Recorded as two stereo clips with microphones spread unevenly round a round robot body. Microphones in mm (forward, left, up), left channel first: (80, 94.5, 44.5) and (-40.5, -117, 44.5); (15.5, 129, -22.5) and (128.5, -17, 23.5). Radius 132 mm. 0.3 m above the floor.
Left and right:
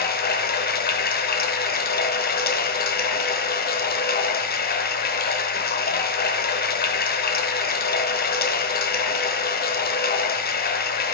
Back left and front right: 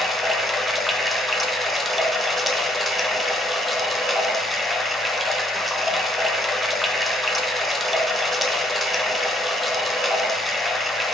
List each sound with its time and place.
0.0 s running water: 60° left, 0.7 m